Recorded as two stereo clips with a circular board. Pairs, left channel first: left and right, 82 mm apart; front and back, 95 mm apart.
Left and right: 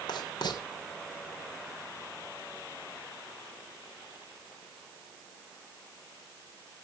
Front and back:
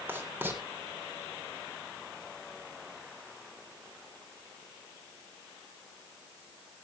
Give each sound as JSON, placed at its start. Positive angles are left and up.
{"t": 0.1, "sound": "writing", "azimuth_deg": 110, "distance_m": 3.0}